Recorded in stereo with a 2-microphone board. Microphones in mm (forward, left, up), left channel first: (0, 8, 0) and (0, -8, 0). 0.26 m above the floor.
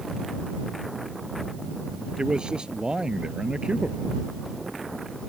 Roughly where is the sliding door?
No sliding door in this recording.